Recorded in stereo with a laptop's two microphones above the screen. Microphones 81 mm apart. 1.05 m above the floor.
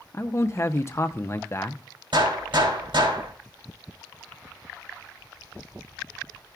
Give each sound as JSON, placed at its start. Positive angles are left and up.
{"t": 0.1, "sound": "a man speaking", "side_deg": 35, "distance_m": 0.5}
{"t": 2.1, "sound": "a gunshot", "side_deg": -85, "distance_m": 3.0}